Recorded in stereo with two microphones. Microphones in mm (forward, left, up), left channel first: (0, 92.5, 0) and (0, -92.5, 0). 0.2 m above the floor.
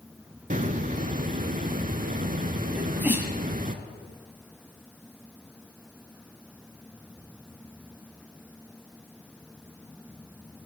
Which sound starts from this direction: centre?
A sneeze, at 2.8 s.